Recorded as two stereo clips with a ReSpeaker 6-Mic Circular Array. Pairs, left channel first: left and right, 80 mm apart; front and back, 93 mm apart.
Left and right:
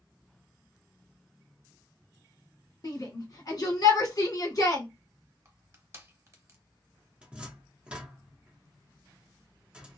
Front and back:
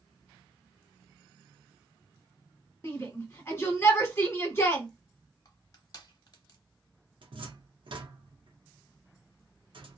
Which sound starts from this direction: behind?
A cupboard door, at 7.2 s.